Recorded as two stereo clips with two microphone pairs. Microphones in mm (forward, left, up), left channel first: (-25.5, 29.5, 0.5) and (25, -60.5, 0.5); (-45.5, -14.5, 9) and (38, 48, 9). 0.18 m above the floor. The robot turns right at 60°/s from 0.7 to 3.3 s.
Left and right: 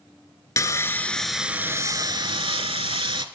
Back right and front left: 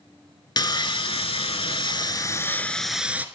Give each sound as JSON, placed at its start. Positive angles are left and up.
{"t": 0.6, "sound": "sawing", "azimuth_deg": 175, "distance_m": 0.6}